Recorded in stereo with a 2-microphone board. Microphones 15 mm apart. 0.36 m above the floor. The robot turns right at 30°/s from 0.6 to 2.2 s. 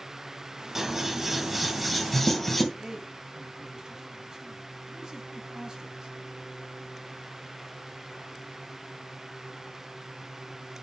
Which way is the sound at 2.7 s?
55° right (ahead or behind).